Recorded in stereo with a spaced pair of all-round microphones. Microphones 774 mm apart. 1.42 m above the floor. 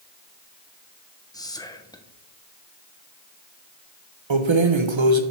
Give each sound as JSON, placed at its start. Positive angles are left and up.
{"t": 1.3, "sound": "whispering", "side_deg": 5, "distance_m": 1.1}
{"t": 4.3, "sound": "keys jangling", "side_deg": -40, "distance_m": 0.7}